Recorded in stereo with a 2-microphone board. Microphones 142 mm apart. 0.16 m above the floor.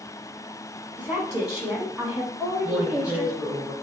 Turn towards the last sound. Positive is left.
turn(degrees=-5)  # may be behind; listen again after turning